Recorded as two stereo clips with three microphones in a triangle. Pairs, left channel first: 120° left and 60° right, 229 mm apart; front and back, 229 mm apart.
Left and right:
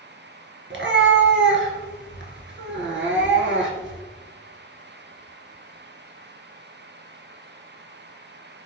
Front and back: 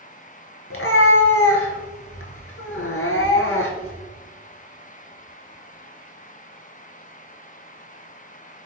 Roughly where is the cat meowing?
Ahead right.